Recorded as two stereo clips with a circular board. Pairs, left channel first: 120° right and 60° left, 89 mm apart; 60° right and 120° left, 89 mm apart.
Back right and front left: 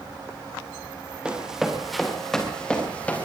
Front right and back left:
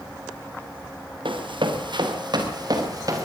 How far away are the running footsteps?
About 4.5 m.